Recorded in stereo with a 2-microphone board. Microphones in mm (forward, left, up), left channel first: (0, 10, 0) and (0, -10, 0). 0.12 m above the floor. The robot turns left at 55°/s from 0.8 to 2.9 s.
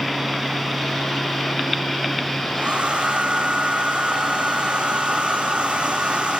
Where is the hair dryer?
65° right (ahead or behind), 7 m; by 6.4 s 80° right, 7 m.